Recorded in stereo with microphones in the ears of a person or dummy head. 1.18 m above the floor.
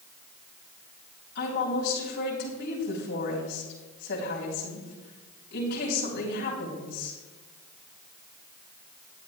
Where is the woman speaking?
50° left (ahead or behind), 3.5 m.